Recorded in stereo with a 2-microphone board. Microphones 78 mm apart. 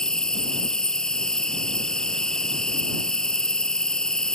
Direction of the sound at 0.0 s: 10° left (ahead or behind).